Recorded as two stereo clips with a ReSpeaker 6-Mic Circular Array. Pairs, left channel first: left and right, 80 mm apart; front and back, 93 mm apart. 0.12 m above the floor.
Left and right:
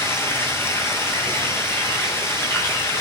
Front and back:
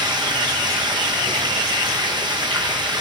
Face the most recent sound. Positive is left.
turn(degrees=150)